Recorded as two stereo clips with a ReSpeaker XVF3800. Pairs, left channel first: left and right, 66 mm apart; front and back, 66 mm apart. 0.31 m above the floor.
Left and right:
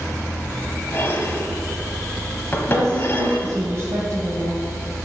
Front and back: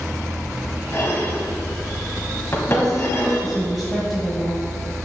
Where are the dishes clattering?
40° left, 1.1 m.